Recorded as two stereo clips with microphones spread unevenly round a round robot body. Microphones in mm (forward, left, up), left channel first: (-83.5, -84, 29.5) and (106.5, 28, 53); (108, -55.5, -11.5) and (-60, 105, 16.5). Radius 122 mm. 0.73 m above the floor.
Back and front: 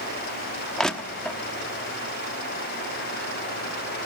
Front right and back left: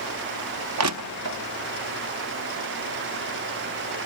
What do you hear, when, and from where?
0.8 s crushing: 125° left, 0.9 m